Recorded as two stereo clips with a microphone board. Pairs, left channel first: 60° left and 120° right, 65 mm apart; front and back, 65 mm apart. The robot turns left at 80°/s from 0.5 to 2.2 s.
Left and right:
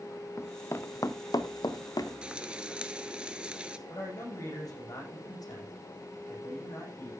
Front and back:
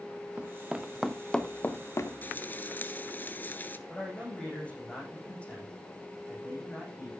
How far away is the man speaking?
About 7 m.